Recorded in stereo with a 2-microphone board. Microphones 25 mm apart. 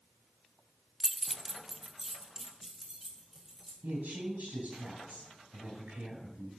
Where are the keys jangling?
10° left (ahead or behind), 0.5 m; by 3.7 s 10° right (ahead or behind), 3 m.